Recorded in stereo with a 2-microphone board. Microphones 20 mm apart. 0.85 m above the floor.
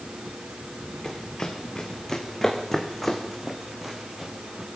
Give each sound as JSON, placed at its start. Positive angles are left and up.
{"t": 1.0, "sound": "running footsteps", "side_deg": 35, "distance_m": 3.5}